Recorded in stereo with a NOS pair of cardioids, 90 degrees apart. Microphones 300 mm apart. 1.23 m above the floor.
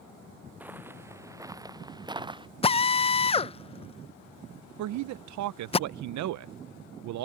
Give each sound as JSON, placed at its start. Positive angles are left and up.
{"t": 0.6, "sound": "footsteps", "azimuth_deg": -5}
{"t": 2.6, "sound": "a drill", "azimuth_deg": 20}
{"t": 4.8, "sound": "a man speaking", "azimuth_deg": -70}